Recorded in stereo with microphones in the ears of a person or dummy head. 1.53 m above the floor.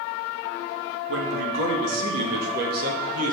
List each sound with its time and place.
1.1 s a man speaking: 80° right, 1.6 m; by 3.3 s 50° right (ahead or behind), 2.0 m